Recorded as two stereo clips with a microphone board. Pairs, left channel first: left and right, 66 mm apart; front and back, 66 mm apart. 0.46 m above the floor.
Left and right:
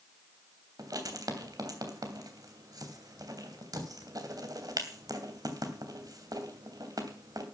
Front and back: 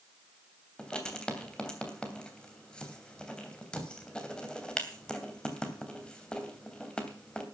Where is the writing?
75° right, 3 m.